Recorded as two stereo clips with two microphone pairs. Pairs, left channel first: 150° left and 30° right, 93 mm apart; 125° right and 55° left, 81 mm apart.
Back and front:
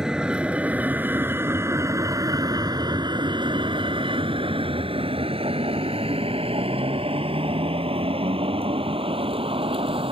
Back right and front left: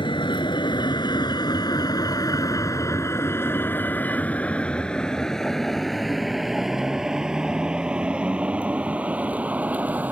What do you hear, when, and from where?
0.0 s a vehicle: 115° right; by 10.1 s 15° right